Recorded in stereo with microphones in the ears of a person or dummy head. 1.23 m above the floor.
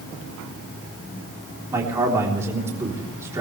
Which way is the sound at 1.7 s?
15° right (ahead or behind).